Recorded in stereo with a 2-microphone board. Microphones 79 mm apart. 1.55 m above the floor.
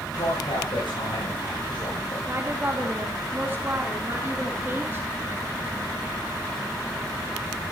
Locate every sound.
0.2 s a man speaking: 85° left, 9 m; by 2.2 s 90° left, 7 m
2.3 s a woman speaking: 30° right (ahead or behind), 2.5 m